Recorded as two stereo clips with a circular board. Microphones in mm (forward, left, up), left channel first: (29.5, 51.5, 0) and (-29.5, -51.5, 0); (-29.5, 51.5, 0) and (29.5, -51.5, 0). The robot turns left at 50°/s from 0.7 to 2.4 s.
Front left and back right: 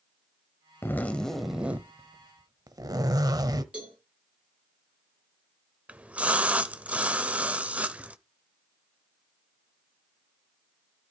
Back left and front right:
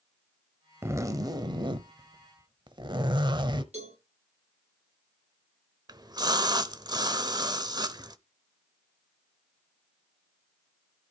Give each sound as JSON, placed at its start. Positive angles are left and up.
{"t": 0.8, "sound": "a zipper", "azimuth_deg": 0, "distance_m": 1.0}
{"t": 3.7, "sound": "a cowbell", "azimuth_deg": -40, "distance_m": 7.5}
{"t": 5.9, "sound": "a splash", "azimuth_deg": -50, "distance_m": 0.8}